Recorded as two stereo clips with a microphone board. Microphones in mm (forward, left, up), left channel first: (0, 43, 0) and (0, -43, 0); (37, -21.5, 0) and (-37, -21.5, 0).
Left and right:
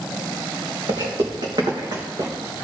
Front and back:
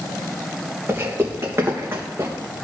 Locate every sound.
0.9 s footsteps: 125° right, 3 m; by 2.3 s 130° right, 3.5 m